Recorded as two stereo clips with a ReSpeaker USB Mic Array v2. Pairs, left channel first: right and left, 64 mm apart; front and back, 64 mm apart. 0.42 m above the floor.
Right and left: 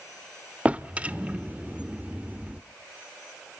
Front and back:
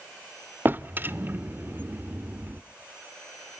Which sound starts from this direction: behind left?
A drawer, at 0.7 s.